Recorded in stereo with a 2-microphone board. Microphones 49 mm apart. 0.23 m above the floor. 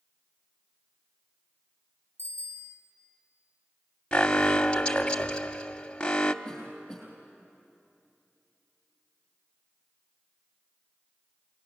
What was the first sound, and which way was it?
A bicycle bell, 55° right (ahead or behind).